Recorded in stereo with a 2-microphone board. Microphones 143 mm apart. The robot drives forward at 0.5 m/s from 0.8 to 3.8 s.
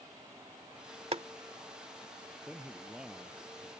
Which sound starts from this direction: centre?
A man speaking, at 2.5 s.